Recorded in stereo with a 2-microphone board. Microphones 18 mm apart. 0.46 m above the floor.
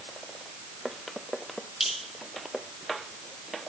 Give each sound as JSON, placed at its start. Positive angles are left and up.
{"t": 1.8, "sound": "dripping", "side_deg": -55, "distance_m": 4.0}